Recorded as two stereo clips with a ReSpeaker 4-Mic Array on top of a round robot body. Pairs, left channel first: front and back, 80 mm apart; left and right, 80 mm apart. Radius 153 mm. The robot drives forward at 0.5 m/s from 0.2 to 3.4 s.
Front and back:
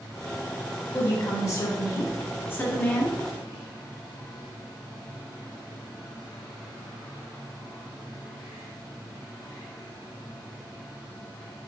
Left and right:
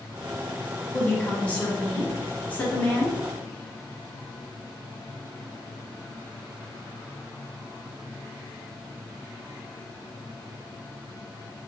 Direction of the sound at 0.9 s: 20° left.